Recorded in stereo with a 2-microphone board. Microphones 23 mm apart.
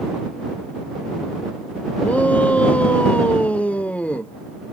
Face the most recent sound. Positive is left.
turn(degrees=75)  # may be behind; listen again after turning